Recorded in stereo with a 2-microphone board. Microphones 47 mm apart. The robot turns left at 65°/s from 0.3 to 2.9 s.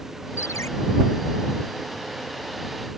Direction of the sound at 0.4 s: 75° left (ahead or behind).